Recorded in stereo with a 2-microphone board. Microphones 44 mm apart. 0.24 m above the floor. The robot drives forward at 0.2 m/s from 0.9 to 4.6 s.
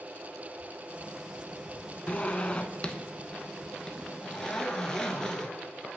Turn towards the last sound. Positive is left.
turn(degrees=15)  # may be behind; listen again after turning